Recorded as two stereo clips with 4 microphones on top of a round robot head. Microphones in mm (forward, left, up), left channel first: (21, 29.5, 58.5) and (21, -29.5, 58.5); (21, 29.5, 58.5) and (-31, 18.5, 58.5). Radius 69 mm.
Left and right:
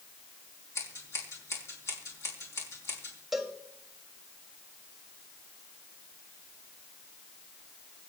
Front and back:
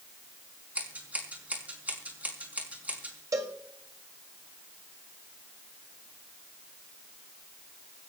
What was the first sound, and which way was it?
Scissors, 130° left.